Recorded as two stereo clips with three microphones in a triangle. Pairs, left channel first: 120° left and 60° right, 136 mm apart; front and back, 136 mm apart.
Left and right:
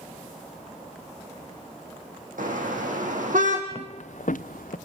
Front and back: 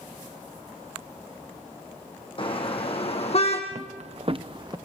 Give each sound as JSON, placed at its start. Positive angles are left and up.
{"t": 2.4, "sound": "a car horn", "azimuth_deg": -50, "distance_m": 3.0}
{"t": 3.7, "sound": "footsteps", "azimuth_deg": 160, "distance_m": 0.7}